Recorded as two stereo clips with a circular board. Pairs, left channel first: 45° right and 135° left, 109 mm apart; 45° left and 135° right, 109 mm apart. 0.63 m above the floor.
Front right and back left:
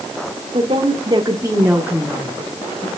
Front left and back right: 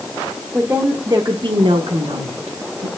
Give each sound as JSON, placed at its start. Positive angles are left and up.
{"t": 0.5, "sound": "a woman speaking", "azimuth_deg": 155, "distance_m": 1.6}